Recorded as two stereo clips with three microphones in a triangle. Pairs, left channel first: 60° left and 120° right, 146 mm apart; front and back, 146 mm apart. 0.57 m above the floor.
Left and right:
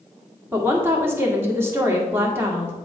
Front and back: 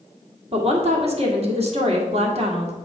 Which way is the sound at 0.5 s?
175° left.